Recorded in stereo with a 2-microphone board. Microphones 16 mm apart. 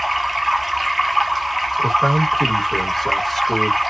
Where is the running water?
5° right (ahead or behind), 0.9 m.